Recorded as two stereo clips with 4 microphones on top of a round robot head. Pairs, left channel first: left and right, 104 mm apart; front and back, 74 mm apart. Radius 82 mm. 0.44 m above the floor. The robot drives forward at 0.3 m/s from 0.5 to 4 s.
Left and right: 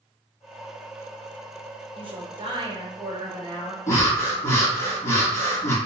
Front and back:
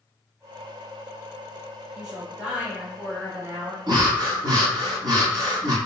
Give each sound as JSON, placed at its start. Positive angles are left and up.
{"t": 1.9, "sound": "a woman speaking", "azimuth_deg": -100, "distance_m": 1.5}
{"t": 3.9, "sound": "breathing", "azimuth_deg": 155, "distance_m": 1.4}